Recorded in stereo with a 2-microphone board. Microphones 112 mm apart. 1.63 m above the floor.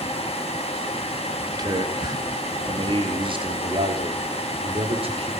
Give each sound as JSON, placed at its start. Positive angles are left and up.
{"t": 1.5, "sound": "a man speaking", "side_deg": -35, "distance_m": 3.0}